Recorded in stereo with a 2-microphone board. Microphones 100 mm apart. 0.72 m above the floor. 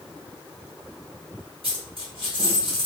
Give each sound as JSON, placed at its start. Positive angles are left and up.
{"t": 1.6, "sound": "a dropped coin", "side_deg": -65, "distance_m": 1.5}